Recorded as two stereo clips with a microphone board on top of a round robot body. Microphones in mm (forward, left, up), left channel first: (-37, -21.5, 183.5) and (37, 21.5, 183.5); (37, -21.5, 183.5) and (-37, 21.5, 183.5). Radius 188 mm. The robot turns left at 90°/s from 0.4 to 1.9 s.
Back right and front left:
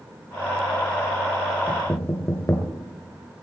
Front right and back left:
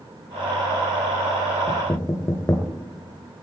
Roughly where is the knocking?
Right.